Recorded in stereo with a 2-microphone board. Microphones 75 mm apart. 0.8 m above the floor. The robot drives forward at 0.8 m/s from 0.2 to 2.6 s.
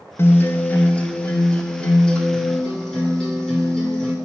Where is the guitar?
30° left (ahead or behind), 0.5 m; by 4.1 s 5° left (ahead or behind), 2 m.